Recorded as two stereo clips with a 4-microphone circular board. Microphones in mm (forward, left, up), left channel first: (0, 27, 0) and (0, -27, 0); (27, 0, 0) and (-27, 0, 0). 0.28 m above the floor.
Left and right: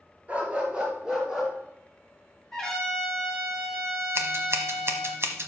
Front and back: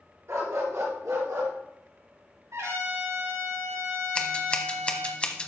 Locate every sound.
0.3 s a dog barking: 150° right, 2.5 m; by 1.5 s 175° right, 2.5 m
2.5 s a trumpet: 175° left, 5.5 m
4.2 s scissors: 65° right, 1.1 m